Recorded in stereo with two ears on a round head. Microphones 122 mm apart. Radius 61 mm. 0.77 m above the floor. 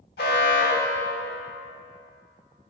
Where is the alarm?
80° left, 1.4 m.